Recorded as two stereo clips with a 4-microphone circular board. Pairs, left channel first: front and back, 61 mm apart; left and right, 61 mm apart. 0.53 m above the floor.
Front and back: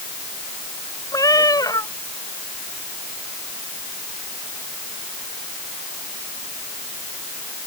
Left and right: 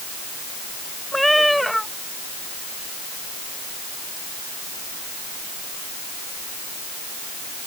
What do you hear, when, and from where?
1.1 s a cat meowing: 5° left